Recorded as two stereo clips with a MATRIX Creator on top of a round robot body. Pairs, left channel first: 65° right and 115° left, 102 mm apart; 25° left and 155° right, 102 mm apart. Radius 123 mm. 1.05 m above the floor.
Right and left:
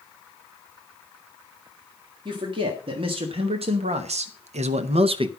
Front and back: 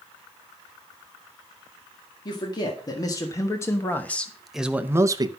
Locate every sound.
2.2 s a man speaking: 70° left, 2 m; by 5.3 s 155° left, 0.8 m